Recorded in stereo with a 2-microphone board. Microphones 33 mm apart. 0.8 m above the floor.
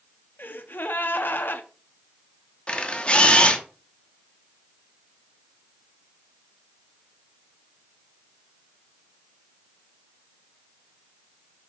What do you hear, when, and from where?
0.4 s a gasp: 80° left, 0.5 m
2.7 s a camera shutter: 35° left (ahead or behind), 0.6 m